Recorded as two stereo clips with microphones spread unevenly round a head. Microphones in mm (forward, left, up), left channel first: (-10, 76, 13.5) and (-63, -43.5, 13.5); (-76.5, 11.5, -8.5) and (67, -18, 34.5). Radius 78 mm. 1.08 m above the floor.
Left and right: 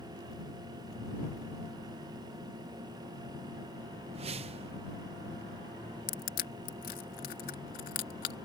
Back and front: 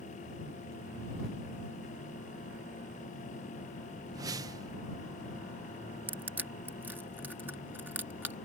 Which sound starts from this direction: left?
Crushing, at 6.1 s.